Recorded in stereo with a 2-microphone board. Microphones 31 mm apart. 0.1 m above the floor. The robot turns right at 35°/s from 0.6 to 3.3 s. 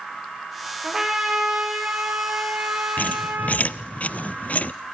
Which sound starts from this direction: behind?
A trumpet, at 0.8 s.